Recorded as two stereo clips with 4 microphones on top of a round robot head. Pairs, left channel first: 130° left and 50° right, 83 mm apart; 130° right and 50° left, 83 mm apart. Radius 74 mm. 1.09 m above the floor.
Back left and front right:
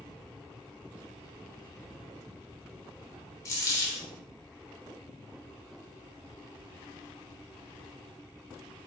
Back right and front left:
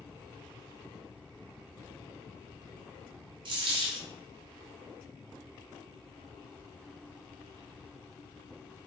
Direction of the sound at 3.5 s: 80° left.